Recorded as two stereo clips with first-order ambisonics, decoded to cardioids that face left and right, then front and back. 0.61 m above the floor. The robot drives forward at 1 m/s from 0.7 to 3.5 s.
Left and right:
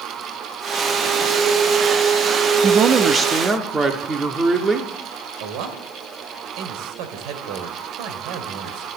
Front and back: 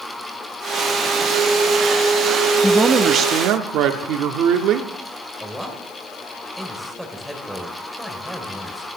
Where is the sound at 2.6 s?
65° right, 0.6 m; by 4.9 s 165° right, 1.0 m.